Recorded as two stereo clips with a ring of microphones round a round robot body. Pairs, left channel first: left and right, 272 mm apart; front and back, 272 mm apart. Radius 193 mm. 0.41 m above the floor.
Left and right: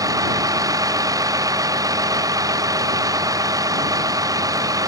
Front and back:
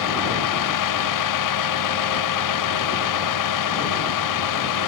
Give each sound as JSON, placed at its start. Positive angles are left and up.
{"t": 0.0, "sound": "a vehicle", "azimuth_deg": -10}